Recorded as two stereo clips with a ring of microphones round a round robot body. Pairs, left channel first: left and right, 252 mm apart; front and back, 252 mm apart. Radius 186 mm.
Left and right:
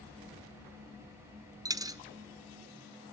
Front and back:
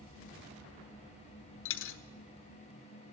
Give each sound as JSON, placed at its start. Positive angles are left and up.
{"t": 1.6, "sound": "a dropped coin", "azimuth_deg": -15, "distance_m": 0.8}